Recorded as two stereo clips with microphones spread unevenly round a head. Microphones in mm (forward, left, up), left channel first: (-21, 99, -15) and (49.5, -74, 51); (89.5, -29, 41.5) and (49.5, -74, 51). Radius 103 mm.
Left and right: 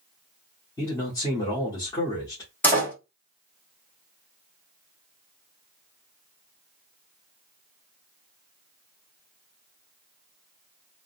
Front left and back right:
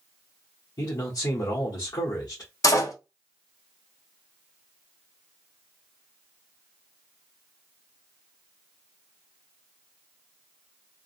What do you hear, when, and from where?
0.8 s a man speaking: 40° left, 1.3 m
2.6 s a door slam: 30° left, 1.9 m